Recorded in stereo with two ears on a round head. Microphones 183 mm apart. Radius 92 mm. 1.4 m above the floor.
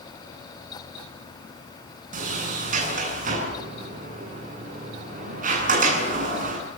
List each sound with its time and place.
2.1 s a sliding door: 40° right (ahead or behind), 8.5 m